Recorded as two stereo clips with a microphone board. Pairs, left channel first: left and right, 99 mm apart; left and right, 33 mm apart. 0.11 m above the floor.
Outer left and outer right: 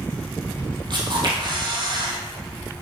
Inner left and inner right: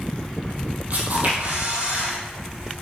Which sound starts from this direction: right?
A camera shutter, at 0.9 s.